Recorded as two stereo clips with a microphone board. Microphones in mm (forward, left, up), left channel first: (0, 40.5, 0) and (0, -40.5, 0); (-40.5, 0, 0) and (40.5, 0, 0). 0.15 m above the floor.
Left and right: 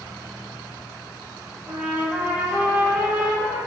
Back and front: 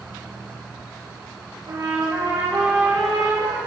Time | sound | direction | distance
1.7 | a trumpet | 20° right | 2.5 m